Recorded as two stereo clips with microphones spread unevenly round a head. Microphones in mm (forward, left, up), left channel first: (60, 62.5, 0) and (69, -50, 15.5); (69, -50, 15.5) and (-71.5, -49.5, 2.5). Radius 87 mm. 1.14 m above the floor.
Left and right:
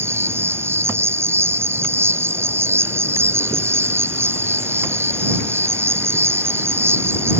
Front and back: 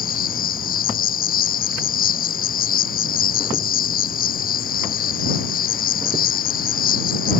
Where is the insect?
20° right.